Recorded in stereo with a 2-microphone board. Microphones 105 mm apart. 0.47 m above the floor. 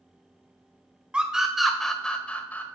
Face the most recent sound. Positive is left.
turn(degrees=15)  # may be behind; listen again after turning